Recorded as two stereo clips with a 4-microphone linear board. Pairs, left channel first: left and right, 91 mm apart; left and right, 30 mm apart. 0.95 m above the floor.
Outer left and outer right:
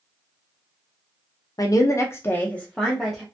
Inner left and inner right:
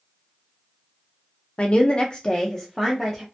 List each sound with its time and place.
1.6 s a woman speaking: 40° left (ahead or behind), 0.5 m; by 3.2 s centre (ahead or behind), 0.7 m